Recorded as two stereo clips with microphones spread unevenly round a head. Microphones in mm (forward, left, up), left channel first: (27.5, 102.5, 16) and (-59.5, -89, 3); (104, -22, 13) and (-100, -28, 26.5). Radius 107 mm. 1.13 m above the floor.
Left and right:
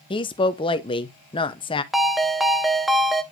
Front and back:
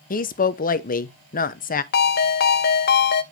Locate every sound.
0.1 s a woman speaking: 5° left, 0.8 m
1.9 s a ringtone: 20° right, 0.6 m